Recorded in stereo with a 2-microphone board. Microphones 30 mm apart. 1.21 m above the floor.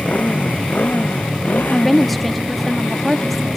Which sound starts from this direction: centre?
A woman speaking, at 1.7 s.